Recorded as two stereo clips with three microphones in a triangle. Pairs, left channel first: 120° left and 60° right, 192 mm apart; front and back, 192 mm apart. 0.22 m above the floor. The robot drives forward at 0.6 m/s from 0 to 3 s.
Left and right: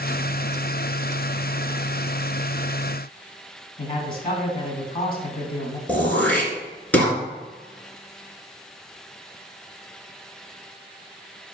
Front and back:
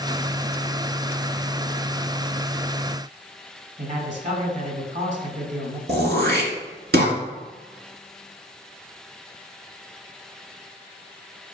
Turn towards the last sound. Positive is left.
turn(degrees=-160)